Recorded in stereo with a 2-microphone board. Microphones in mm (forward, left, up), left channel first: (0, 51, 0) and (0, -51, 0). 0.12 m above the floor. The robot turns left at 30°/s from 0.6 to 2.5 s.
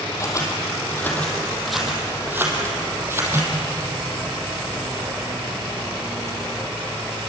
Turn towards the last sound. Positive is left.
turn(degrees=-25)  # may be behind; listen again after turning